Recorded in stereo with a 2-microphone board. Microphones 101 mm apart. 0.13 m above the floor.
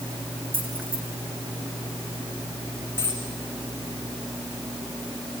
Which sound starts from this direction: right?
A dropped coin, at 3.0 s.